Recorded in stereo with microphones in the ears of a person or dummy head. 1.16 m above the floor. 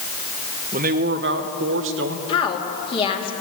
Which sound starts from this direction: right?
A man speaking, at 0.7 s.